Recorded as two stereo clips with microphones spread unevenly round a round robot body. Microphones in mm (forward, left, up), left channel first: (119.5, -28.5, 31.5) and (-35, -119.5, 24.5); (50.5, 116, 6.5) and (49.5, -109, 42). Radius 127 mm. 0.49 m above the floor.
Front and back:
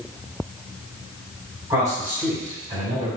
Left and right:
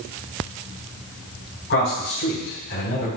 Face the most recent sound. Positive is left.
turn(degrees=140)